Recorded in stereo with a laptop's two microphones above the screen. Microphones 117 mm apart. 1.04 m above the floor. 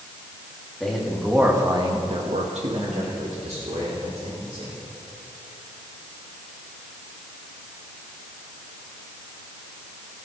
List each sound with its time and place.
0.8 s a man speaking: 5° left (ahead or behind), 2.0 m; by 4.7 s 55° right (ahead or behind), 4.5 m